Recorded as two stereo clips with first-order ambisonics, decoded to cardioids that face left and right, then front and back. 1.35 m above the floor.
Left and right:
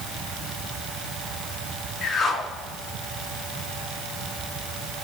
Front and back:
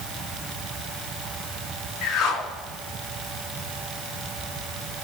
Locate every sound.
2.0 s a whoosh: 25° left, 2 m